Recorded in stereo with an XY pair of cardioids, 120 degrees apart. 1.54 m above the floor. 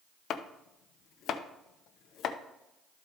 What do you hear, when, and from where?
0.3 s chopping: 60° left, 0.7 m